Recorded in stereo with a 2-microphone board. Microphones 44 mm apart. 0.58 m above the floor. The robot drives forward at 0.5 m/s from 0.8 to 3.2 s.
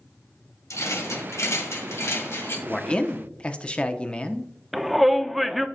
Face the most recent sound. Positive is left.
turn(degrees=0)  # may be behind; listen again after turning